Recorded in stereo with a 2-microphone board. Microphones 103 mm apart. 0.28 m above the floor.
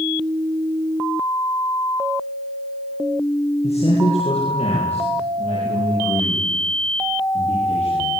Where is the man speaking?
80° left, 8.5 m.